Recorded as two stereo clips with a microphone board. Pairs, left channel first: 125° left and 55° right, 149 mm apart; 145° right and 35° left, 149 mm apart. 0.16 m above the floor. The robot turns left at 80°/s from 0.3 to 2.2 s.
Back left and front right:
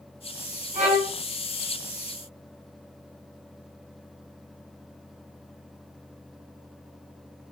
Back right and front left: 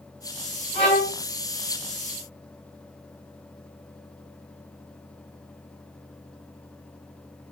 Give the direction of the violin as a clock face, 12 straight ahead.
3 o'clock.